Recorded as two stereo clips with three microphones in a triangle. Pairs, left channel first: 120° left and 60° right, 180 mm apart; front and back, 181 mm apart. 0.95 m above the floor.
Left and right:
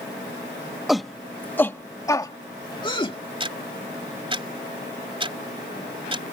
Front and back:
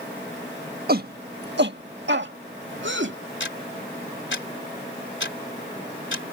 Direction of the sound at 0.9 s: 150° right.